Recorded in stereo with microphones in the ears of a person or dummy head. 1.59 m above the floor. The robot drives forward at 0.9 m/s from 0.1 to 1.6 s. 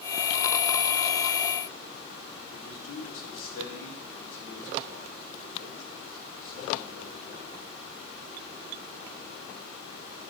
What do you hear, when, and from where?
2.5 s a man speaking: 85° left, 5.5 m